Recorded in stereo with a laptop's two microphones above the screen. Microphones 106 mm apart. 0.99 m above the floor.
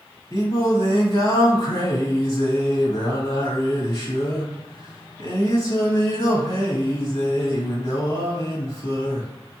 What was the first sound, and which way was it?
Singing, 55° left (ahead or behind).